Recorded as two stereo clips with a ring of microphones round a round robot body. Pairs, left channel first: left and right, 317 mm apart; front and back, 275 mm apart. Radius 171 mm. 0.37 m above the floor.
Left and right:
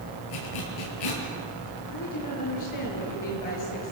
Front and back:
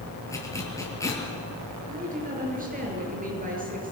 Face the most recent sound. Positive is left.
turn(degrees=120)